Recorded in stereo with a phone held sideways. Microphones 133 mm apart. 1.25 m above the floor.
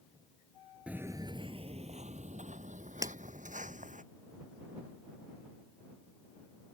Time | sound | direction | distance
0.9 | footsteps | 10° right (ahead or behind) | ?
3.0 | breaking glass | 25° right (ahead or behind) | ?